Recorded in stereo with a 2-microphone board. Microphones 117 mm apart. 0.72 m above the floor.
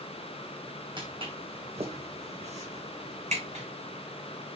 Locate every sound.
1.0 s footsteps: 45° right (ahead or behind), 2 m; by 3.6 s 75° right (ahead or behind), 2.5 m